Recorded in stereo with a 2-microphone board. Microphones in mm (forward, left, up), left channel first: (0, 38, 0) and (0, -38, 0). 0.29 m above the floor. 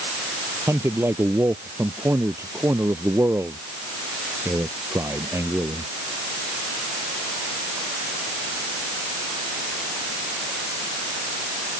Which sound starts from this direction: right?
A man speaking, at 0.7 s.